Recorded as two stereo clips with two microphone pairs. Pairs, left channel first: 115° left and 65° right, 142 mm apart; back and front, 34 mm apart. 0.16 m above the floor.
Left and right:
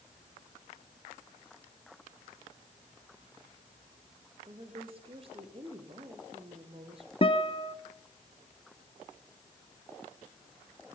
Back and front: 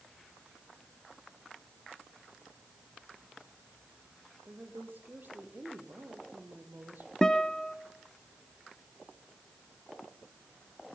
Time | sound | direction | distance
4.5 | a woman speaking | 15° right | 5 m
7.2 | a guitar | 125° left | 0.9 m